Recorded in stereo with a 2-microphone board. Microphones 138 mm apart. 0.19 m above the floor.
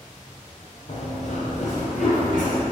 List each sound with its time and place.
0.9 s running footsteps: 55° left (ahead or behind), 1.0 m; by 2.6 s 65° left (ahead or behind), 2.5 m